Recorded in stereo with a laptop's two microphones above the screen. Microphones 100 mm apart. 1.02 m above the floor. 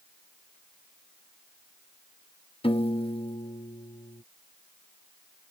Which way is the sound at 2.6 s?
65° left (ahead or behind).